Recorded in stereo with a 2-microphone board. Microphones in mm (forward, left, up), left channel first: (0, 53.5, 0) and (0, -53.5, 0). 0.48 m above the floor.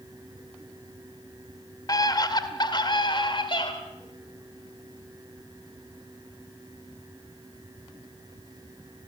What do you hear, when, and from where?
1.9 s a scream: 40° left (ahead or behind), 1.9 m; by 3.7 s 55° left (ahead or behind), 2.0 m